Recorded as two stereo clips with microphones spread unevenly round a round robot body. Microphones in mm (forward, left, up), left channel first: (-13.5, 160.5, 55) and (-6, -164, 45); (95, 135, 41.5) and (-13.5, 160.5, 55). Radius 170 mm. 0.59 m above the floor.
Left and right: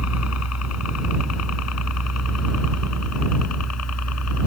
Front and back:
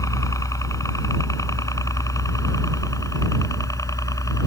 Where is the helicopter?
45° left.